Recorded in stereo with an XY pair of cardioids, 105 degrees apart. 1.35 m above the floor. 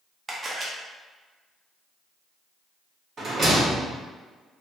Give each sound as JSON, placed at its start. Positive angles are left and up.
{"t": 0.3, "sound": "a camera shutter", "azimuth_deg": -35, "distance_m": 0.7}
{"t": 3.2, "sound": "a rattle", "azimuth_deg": -45, "distance_m": 1.4}